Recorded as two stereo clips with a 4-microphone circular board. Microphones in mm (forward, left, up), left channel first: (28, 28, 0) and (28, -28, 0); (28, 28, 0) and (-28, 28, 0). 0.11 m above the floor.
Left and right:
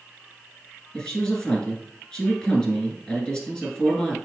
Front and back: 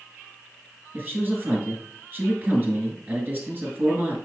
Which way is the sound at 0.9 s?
155° left.